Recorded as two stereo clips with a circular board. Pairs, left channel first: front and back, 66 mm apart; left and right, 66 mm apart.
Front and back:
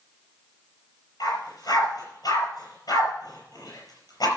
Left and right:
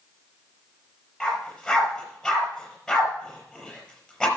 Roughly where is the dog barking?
Ahead.